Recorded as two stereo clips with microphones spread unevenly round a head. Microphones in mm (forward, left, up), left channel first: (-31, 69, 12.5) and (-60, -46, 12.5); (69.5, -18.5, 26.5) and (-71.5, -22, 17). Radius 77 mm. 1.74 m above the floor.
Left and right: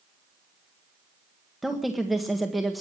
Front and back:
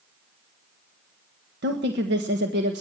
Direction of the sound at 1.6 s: 165° left.